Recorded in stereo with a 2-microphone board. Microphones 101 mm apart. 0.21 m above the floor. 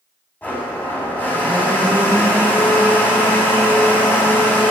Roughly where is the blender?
Centre.